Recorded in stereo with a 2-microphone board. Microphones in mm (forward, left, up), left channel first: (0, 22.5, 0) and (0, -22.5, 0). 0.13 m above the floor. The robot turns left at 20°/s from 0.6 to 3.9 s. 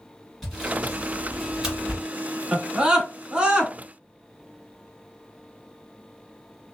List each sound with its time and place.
0.4 s sawing: centre (ahead or behind), 1.9 m; by 2.1 s 20° right (ahead or behind), 1.9 m
2.5 s a scream: 20° right (ahead or behind), 1.1 m